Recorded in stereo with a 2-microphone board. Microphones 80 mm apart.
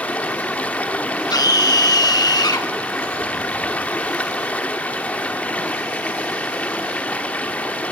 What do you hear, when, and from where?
0.0 s running water: 15° left (ahead or behind), 1.2 m
1.3 s a scream: 50° left (ahead or behind), 1.9 m